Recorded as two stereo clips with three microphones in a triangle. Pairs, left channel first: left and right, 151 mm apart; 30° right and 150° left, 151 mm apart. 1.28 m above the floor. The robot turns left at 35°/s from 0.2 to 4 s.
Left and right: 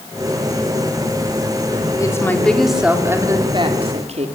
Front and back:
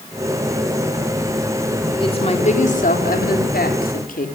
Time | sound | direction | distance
2.0 | a woman speaking | 25° left | 3.5 m